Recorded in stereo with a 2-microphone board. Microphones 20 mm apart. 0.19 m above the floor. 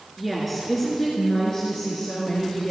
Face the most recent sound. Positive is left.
turn(degrees=40)  # may be behind; listen again after turning